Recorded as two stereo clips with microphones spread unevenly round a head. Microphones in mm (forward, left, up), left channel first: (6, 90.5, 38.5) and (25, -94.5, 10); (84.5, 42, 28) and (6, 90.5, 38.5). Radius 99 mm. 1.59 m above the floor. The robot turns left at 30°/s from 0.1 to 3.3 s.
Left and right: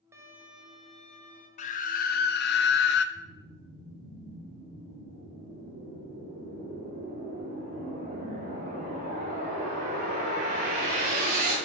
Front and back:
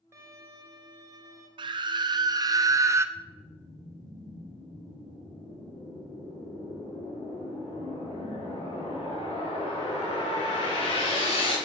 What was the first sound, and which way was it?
A violin, 165° right.